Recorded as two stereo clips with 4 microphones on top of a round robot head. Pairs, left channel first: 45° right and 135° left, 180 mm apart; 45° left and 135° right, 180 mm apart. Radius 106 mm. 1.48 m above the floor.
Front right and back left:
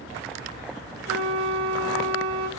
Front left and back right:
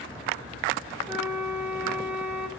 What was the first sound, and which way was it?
A flute, 145° left.